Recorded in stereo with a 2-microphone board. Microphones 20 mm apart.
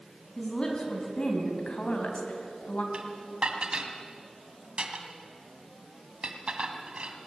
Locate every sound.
0.4 s a woman speaking: 30° left (ahead or behind), 3.5 m; by 2.8 s 70° left (ahead or behind), 3 m
2.9 s dishes clattering: 50° right (ahead or behind), 2 m